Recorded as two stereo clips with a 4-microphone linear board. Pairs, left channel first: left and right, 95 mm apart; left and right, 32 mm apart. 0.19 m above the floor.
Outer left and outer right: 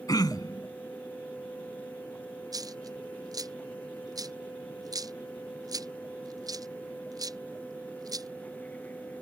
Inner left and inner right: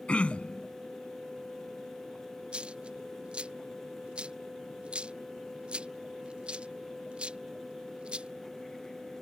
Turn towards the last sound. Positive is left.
turn(degrees=-40)  # may be behind; listen again after turning